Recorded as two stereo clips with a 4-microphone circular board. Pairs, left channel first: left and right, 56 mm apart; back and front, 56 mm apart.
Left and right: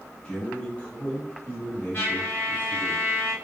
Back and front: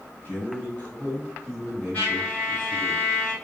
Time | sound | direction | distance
0.2 | a man speaking | 155° left | 1.6 m
1.9 | a trumpet | 130° left | 1.9 m